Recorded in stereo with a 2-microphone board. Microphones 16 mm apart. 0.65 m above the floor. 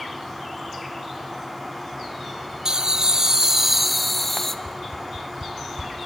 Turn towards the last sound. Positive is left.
turn(degrees=-75)  # may be behind; listen again after turning